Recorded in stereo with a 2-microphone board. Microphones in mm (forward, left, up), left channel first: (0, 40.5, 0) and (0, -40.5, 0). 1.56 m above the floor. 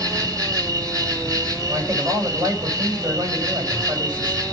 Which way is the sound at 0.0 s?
50° right (ahead or behind).